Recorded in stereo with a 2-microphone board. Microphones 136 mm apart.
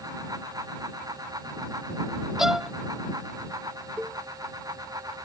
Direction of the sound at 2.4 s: 5° right (ahead or behind).